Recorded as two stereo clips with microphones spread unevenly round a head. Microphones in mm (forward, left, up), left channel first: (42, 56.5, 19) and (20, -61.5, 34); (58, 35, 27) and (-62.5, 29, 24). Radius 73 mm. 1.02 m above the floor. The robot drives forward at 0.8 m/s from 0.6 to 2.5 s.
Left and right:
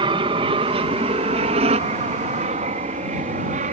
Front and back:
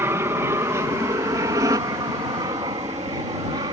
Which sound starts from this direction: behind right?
An aircraft, at 0.0 s.